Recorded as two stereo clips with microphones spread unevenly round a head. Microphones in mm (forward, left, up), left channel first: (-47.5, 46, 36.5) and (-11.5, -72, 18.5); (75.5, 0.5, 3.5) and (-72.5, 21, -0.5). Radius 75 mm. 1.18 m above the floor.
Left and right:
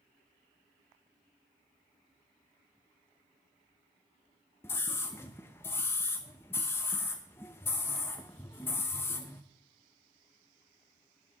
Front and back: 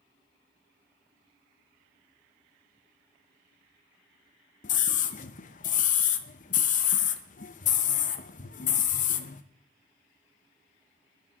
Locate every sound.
4.6 s a scream: 30° left, 0.8 m